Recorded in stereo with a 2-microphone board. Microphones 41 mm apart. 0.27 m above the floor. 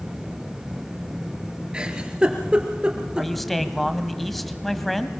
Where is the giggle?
20° right (ahead or behind), 2.5 m.